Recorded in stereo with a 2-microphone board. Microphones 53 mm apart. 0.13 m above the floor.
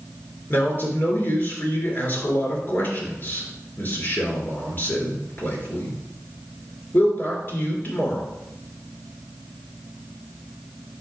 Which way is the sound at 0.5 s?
40° left (ahead or behind).